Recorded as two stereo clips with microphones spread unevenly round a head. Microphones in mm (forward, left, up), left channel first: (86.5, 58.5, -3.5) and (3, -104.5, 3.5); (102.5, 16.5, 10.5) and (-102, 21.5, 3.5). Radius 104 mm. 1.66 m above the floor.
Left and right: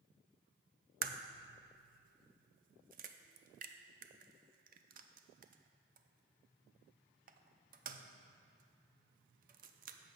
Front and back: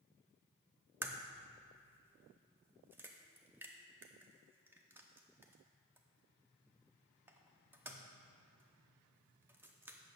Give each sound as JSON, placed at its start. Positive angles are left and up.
{"t": 1.0, "sound": "a crack", "azimuth_deg": -100, "distance_m": 0.5}